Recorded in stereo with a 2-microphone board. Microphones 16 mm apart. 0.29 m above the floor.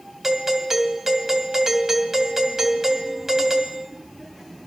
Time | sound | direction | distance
0.2 | a doorbell | 35° right (ahead or behind) | 2.5 m